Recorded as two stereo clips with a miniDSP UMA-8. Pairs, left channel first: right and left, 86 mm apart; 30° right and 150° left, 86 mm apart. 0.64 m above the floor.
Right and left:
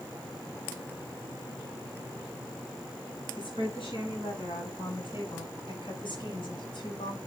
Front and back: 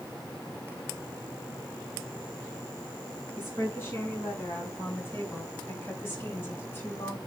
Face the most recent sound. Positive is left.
turn(degrees=-95)